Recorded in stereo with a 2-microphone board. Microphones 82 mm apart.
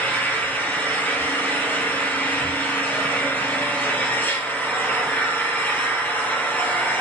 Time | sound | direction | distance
0.0 | an engine running | 20° left (ahead or behind) | 1.9 m